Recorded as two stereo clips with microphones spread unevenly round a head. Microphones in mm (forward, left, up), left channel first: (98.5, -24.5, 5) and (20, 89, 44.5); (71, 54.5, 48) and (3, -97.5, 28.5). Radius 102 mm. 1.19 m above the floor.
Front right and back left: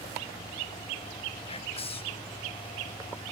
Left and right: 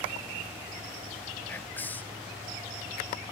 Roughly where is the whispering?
Ahead.